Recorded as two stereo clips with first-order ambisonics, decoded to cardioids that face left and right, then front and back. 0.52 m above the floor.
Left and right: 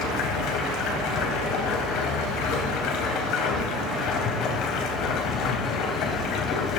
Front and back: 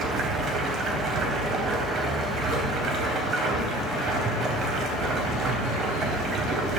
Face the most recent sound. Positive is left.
turn(degrees=125)